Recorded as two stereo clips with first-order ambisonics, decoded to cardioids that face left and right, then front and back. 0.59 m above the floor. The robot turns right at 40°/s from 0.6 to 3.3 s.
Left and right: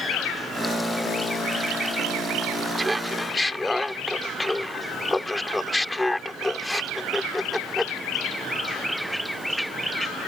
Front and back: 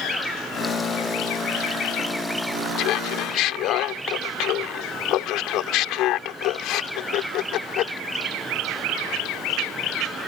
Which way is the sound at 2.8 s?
15° right.